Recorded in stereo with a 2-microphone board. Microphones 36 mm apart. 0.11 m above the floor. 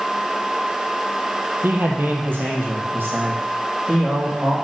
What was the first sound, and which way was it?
A man speaking, 60° right (ahead or behind).